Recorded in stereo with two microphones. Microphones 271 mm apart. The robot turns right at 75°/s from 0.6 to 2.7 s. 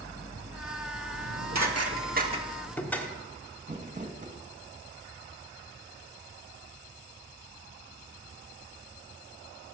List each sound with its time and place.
1.1 s dishes clattering: 65° right (ahead or behind), 1.3 m; by 3.1 s 5° left (ahead or behind), 1.3 m
3.6 s crumpling: 30° right (ahead or behind), 1.2 m